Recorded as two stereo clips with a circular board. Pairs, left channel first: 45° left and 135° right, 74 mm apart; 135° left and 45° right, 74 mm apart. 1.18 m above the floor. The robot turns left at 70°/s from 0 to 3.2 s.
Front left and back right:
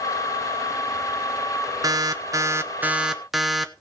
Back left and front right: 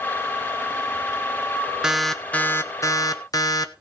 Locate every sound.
1.8 s an alarm: 125° right, 1.1 m; by 3.7 s 140° left, 1.1 m